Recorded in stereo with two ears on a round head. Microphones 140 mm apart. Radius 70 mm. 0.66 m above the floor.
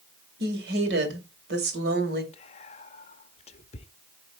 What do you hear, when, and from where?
0.4 s a woman speaking: 70° right (ahead or behind), 2.5 m; by 2.2 s 75° right (ahead or behind), 2.5 m
2.3 s whispering: 40° left (ahead or behind), 0.7 m